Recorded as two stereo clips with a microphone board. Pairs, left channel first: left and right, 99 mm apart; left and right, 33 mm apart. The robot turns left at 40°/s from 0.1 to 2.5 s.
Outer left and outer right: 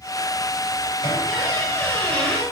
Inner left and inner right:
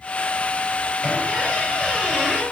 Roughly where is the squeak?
Ahead left.